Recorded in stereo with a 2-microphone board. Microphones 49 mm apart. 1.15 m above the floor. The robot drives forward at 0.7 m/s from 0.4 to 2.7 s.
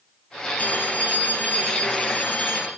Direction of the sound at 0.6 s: 40° left (ahead or behind).